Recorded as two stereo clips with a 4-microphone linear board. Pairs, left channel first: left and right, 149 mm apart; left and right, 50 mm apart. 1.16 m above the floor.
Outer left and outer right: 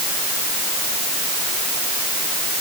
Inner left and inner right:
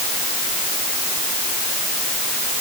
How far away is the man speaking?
I don't hear a man speaking.